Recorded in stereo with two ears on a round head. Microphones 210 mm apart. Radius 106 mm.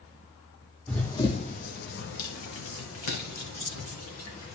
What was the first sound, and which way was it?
Running footsteps, 5° left (ahead or behind).